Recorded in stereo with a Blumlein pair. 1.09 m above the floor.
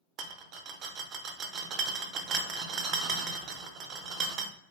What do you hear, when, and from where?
0.2 s a rattle: 35° right, 0.5 m